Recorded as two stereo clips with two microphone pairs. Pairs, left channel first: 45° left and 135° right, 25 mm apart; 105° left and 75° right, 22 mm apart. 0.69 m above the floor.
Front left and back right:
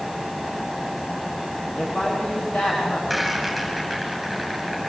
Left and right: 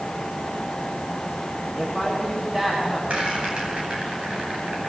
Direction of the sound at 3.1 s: 40° right.